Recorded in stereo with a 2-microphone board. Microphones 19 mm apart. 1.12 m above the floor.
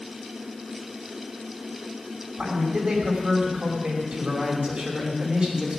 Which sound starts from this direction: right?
A man speaking, at 2.4 s.